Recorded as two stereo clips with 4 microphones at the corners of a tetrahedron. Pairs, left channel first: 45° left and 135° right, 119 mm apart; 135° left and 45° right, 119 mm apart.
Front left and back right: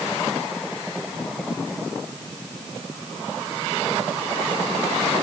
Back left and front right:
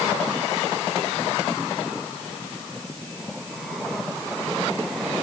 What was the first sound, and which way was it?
Only background noise.